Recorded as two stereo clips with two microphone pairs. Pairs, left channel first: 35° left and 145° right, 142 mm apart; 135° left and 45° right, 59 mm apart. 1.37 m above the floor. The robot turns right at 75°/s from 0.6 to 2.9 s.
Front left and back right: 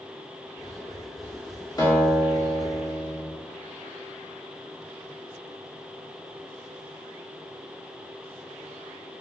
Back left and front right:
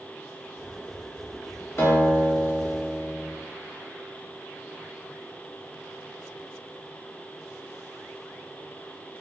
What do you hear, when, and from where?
1.8 s a guitar: 95° left, 0.8 m; by 3.3 s straight behind, 0.8 m